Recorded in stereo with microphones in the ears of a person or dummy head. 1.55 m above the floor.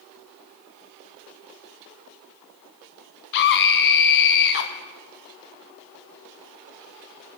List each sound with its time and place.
3.3 s a scream: 60° left (ahead or behind), 0.8 m